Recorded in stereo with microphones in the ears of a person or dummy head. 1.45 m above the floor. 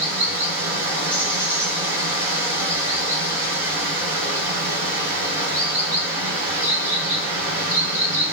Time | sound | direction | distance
0.0 | running water | 45° right (ahead or behind) | 2.5 m